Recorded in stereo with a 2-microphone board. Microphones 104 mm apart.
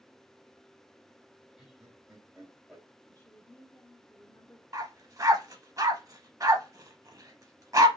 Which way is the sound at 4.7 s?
35° right (ahead or behind).